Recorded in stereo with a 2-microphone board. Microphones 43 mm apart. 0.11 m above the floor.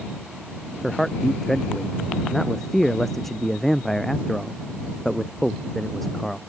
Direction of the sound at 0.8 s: 5° left (ahead or behind).